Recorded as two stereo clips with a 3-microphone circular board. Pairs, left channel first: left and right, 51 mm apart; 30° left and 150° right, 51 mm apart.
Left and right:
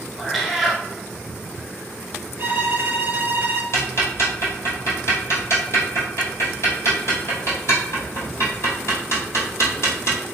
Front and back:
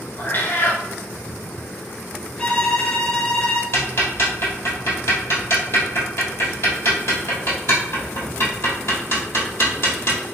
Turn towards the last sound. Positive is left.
turn(degrees=60)